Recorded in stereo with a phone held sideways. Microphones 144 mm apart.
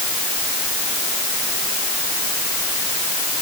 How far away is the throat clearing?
No throat clearing in this recording.